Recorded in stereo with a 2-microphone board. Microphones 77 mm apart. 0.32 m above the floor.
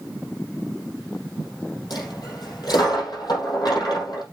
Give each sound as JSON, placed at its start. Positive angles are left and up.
{"t": 1.9, "sound": "a dropped coin", "side_deg": 65, "distance_m": 5.5}